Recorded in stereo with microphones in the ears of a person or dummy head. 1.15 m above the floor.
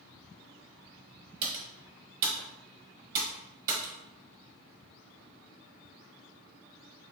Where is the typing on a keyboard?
45° right (ahead or behind), 1.2 m.